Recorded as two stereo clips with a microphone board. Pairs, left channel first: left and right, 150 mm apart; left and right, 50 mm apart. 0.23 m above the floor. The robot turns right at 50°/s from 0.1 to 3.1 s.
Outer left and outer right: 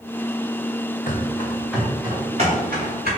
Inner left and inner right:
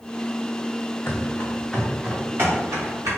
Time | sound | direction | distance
1.1 | running footsteps | 60° left (ahead or behind) | 1.3 m